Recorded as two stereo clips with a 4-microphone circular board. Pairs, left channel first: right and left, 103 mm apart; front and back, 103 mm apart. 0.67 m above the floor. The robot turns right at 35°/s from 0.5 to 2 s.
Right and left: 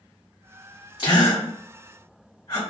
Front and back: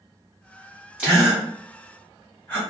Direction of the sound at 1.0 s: 105° right.